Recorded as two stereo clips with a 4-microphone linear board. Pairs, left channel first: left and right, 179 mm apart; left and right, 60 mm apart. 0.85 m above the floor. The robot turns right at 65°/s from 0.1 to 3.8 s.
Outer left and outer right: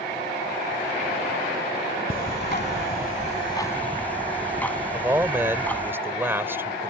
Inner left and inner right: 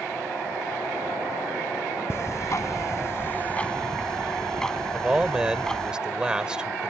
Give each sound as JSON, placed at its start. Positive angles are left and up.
{"t": 2.1, "sound": "ticking", "azimuth_deg": 60}
{"t": 4.9, "sound": "a man speaking", "side_deg": -10}